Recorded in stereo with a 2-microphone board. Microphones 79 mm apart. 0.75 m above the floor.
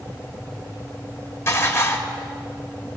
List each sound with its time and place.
1.5 s dishes clattering: 30° left (ahead or behind), 1.7 m